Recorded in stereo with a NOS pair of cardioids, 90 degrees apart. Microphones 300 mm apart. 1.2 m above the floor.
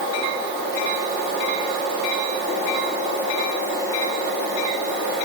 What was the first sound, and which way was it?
Only background noise.